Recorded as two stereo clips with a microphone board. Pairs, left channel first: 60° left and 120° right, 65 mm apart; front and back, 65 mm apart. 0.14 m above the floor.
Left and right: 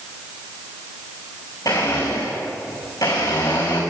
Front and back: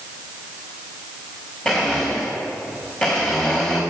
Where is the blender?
65° left, 4.5 m.